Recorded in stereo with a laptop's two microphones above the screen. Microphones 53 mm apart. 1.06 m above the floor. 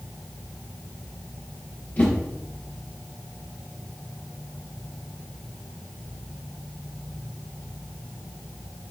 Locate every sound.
2.0 s a whoosh: 35° left (ahead or behind), 0.6 m